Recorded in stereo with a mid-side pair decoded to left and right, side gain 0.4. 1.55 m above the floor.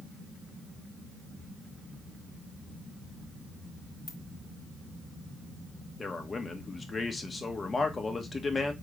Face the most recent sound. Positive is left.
turn(degrees=35)